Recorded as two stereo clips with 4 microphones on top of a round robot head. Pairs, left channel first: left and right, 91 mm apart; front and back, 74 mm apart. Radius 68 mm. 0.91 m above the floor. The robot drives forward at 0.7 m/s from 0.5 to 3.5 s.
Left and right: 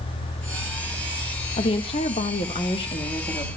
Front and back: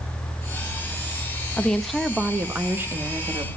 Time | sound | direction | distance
1.6 | a woman speaking | 75° left | 1.1 m